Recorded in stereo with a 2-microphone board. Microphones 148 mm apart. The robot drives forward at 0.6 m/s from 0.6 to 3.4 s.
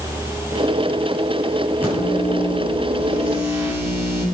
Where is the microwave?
15° right (ahead or behind), 7.5 m; by 4.2 s 10° right (ahead or behind), 8.5 m.